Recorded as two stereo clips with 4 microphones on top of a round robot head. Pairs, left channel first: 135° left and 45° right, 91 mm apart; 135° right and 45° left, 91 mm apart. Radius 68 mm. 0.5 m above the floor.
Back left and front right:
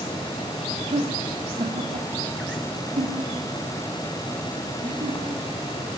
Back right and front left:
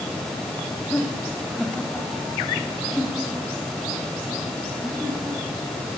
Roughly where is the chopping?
I don't hear chopping.